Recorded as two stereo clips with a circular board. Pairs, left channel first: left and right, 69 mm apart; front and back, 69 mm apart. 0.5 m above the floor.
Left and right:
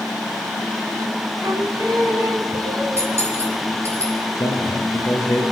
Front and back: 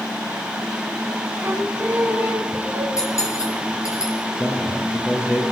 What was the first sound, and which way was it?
Singing, 120° right.